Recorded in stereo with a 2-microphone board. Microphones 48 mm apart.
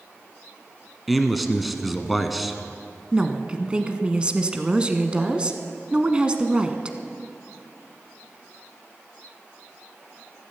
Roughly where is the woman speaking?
Right.